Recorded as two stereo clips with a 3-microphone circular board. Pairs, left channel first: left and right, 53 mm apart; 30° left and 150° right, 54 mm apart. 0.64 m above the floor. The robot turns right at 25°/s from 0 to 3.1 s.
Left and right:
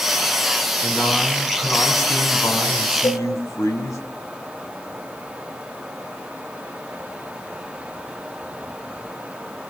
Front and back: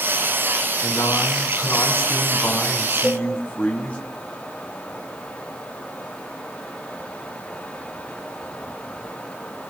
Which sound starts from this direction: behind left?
A cowbell, at 3.0 s.